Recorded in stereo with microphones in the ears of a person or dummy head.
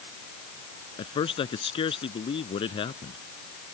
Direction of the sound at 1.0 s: 30° left (ahead or behind).